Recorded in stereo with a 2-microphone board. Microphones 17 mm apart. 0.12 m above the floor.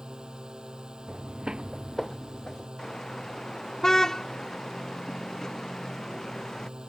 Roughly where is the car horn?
Left.